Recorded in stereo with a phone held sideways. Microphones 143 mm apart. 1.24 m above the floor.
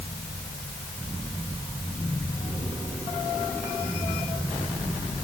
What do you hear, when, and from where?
Only background noise.